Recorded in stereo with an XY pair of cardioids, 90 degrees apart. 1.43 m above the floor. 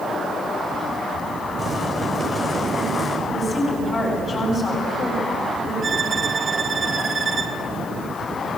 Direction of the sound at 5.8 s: 45° right.